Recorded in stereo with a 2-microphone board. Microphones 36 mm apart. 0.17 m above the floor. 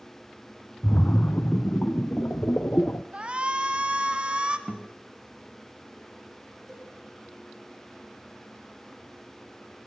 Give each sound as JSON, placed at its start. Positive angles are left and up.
{"t": 0.8, "sound": "a splash", "side_deg": 60, "distance_m": 0.9}
{"t": 3.1, "sound": "a shout", "side_deg": -30, "distance_m": 1.6}
{"t": 4.7, "sound": "a guitar", "side_deg": -15, "distance_m": 1.9}
{"t": 6.7, "sound": "a cowbell", "side_deg": 5, "distance_m": 9.0}